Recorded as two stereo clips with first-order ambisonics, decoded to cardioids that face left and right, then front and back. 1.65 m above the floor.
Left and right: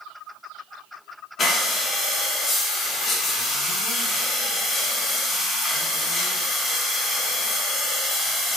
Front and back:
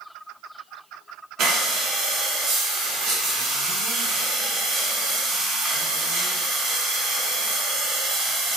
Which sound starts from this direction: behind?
Breathing, at 1.4 s.